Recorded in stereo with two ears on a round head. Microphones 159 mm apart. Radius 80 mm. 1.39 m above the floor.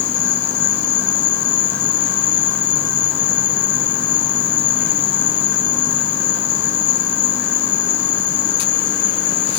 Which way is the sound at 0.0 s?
70° left (ahead or behind).